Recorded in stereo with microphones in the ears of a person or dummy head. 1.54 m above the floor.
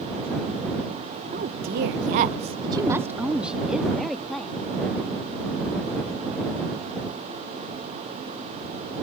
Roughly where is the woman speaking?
Right.